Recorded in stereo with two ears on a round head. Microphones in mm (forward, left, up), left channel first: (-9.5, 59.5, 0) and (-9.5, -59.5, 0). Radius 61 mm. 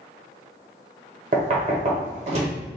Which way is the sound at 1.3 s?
50° right (ahead or behind).